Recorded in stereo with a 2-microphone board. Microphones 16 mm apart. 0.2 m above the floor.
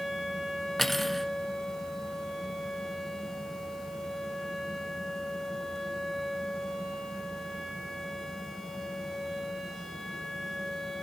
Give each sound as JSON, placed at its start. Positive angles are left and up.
{"t": 0.8, "sound": "cutlery clinking", "side_deg": 5, "distance_m": 1.2}